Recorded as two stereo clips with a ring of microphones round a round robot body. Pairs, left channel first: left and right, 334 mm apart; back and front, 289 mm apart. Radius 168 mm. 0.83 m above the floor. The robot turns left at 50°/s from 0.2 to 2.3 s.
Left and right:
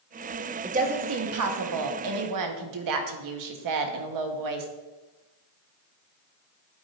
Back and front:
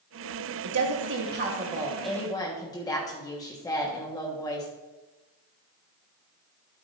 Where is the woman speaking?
20° right, 1.2 m; by 4.7 s 105° right, 1.2 m.